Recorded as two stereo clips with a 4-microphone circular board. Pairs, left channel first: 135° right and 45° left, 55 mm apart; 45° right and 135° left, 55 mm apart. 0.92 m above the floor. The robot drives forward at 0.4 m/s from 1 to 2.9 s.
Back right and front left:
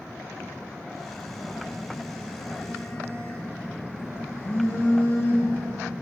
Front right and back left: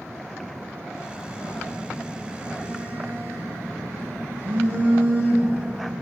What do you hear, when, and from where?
1.2 s a phone buzzing: straight behind, 4.5 m